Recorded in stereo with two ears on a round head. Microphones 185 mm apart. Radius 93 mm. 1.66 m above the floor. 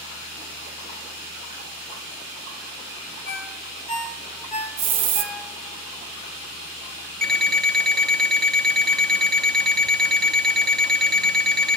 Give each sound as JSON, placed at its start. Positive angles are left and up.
{"t": 3.2, "sound": "a ringtone", "side_deg": 35, "distance_m": 3.5}
{"t": 4.8, "sound": "a hiss", "side_deg": -30, "distance_m": 1.1}
{"t": 7.2, "sound": "an alarm clock", "side_deg": 5, "distance_m": 0.8}